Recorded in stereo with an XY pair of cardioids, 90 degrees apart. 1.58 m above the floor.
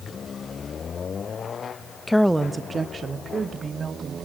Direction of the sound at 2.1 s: 20° left.